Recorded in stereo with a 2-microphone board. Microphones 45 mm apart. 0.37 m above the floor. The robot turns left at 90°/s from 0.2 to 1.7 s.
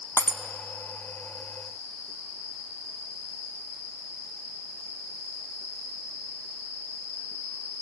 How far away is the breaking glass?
About 0.9 m.